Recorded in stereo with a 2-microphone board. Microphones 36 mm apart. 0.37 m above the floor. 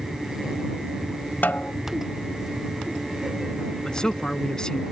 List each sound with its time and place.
1.4 s a snare drum: 60° left (ahead or behind)
3.9 s a man speaking: 20° left (ahead or behind)